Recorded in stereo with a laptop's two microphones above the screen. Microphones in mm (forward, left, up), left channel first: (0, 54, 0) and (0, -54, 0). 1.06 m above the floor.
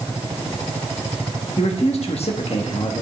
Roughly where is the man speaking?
Left.